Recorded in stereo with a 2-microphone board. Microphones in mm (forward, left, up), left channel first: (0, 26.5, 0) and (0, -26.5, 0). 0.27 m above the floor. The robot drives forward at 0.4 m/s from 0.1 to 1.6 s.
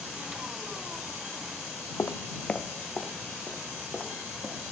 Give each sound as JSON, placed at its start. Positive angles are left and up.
{"t": 2.0, "sound": "footsteps", "side_deg": 60, "distance_m": 0.6}